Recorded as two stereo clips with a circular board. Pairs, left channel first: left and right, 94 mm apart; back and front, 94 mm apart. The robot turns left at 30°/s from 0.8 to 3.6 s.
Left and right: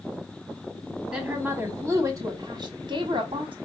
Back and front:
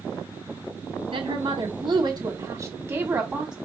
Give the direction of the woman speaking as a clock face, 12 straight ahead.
12 o'clock.